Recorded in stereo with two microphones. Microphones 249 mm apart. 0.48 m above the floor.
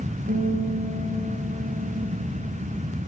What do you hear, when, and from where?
0.3 s a guitar: 45° right (ahead or behind), 8.5 m